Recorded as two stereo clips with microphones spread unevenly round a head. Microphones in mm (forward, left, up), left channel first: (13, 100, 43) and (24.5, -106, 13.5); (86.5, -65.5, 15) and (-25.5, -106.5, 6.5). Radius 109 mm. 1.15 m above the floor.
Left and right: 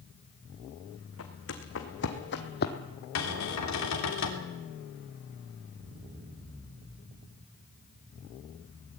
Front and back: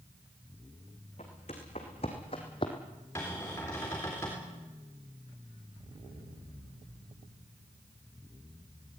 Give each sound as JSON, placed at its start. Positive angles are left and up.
{"t": 1.2, "sound": "footsteps", "azimuth_deg": 75, "distance_m": 3.5}
{"t": 3.1, "sound": "a cupboard door", "azimuth_deg": 100, "distance_m": 3.5}